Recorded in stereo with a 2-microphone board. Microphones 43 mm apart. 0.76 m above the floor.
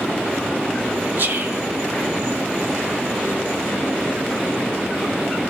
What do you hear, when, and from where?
1.2 s whispering: 55° right (ahead or behind), 2.5 m